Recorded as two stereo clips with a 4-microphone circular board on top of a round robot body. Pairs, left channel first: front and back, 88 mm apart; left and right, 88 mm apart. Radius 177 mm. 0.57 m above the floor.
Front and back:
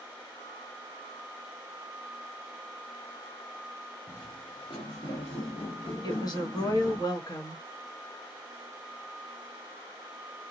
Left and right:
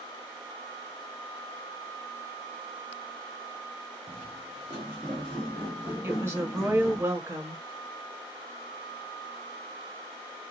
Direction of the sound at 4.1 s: 70° right.